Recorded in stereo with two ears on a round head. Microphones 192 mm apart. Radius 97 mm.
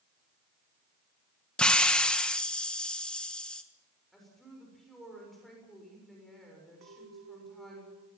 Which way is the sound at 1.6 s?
5° left (ahead or behind).